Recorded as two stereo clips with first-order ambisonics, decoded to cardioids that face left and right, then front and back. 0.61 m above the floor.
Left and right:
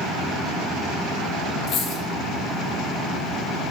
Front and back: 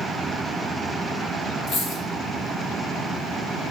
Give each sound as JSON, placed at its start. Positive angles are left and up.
{"t": 1.7, "sound": "a dropped coin", "azimuth_deg": 45, "distance_m": 0.7}